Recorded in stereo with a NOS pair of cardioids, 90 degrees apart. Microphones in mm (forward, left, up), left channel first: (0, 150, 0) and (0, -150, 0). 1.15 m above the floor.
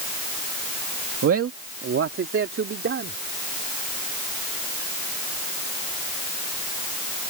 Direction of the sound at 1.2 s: 50° right.